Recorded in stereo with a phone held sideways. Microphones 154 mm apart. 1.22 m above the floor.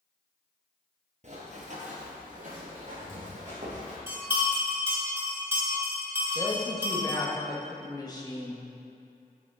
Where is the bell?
15° right (ahead or behind), 2 m.